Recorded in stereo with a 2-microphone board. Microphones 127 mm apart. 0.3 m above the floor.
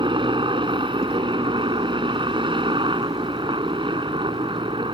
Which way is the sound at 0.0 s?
40° right (ahead or behind).